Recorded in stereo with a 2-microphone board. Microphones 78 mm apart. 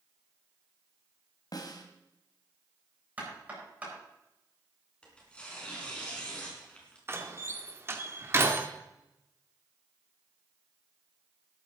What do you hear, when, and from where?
1.5 s a snare drum: 55° left (ahead or behind), 2 m
3.2 s knocking: 20° right (ahead or behind), 8 m
5.0 s tearing paper: 15° left (ahead or behind), 4 m
7.1 s a door slam: 30° right (ahead or behind), 1.7 m